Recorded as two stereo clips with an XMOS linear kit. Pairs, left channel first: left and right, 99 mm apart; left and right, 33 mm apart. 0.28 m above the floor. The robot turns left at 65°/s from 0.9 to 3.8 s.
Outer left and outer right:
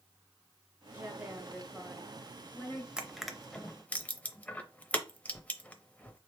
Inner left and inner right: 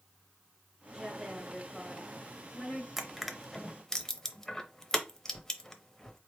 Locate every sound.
0.9 s a woman speaking: 20° right (ahead or behind), 1.2 m; by 2.9 s 25° left (ahead or behind), 1.2 m
3.0 s crushing: 10° right (ahead or behind), 0.6 m; by 6.2 s 15° left (ahead or behind), 0.6 m